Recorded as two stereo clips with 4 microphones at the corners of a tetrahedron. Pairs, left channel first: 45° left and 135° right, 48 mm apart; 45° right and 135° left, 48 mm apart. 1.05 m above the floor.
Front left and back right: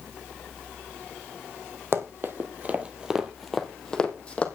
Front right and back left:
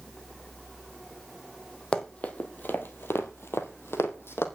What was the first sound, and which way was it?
Running footsteps, 110° right.